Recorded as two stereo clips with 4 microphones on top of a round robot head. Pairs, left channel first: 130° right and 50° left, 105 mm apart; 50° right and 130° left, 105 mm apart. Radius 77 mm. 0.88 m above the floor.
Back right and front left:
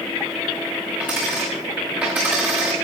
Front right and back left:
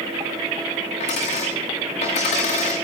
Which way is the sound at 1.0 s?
25° right.